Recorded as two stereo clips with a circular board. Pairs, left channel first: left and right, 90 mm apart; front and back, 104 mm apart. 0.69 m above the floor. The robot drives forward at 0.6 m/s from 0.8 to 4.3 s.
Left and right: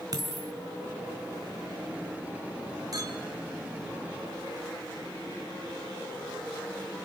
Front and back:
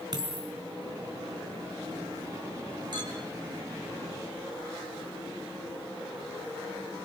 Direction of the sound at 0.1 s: 135° right.